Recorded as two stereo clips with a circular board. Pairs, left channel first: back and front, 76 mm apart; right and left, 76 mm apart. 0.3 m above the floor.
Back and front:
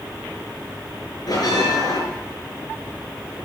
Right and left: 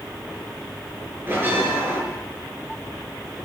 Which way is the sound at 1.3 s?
150° left.